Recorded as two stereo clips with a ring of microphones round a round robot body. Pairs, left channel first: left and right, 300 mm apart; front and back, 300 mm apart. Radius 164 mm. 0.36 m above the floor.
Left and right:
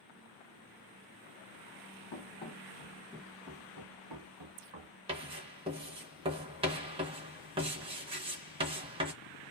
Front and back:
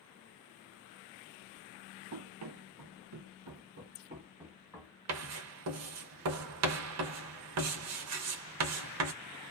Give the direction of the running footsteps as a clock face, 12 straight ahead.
7 o'clock.